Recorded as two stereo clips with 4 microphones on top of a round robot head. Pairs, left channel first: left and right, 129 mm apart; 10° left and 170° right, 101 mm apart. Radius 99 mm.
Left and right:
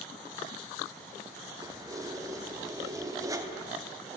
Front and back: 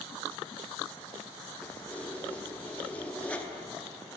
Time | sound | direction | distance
1.6 | keys jangling | 55° right | 0.5 m